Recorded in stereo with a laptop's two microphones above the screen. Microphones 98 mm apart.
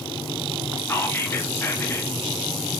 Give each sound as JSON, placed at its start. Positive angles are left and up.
{"t": 0.9, "sound": "whispering", "side_deg": 25, "distance_m": 0.9}